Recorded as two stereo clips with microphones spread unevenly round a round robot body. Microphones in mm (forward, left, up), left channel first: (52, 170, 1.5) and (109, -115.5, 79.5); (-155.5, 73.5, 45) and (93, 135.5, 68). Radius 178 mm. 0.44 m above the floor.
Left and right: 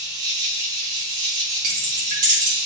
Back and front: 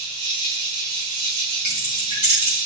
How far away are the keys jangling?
About 3.5 m.